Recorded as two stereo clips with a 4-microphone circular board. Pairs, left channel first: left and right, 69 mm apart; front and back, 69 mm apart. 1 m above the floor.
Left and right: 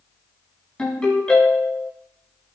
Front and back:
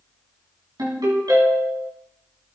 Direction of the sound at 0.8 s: 165° left.